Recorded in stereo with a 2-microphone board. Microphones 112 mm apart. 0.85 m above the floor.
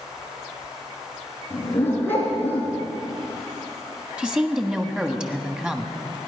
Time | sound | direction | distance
1.5 | a dog barking | 15° left (ahead or behind) | 3.5 m
4.2 | a woman speaking | 5° right (ahead or behind) | 1.2 m